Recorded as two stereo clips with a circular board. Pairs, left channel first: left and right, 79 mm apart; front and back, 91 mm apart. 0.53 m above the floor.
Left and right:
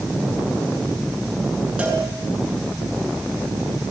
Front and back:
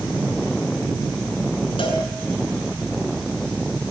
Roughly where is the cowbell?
Ahead.